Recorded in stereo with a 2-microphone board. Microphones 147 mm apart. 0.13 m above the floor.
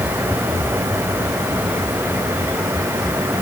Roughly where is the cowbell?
I don't hear a cowbell.